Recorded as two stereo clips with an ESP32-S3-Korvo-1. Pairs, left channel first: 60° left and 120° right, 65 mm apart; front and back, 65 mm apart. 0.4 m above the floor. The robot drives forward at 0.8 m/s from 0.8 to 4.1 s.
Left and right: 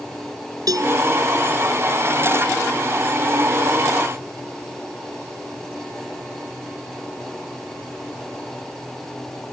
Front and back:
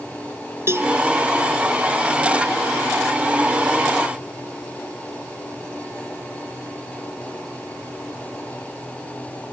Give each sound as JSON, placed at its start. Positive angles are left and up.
{"t": 0.7, "sound": "a cowbell", "azimuth_deg": -135}